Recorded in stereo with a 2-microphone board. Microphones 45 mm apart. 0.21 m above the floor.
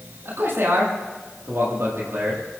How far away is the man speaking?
About 8 m.